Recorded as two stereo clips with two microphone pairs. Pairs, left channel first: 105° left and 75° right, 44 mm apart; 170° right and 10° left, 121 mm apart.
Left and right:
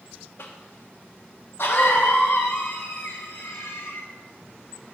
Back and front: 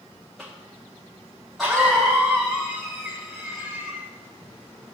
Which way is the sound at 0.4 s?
105° left.